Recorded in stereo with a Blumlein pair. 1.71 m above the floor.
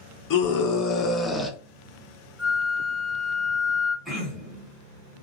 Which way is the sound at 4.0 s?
5° left.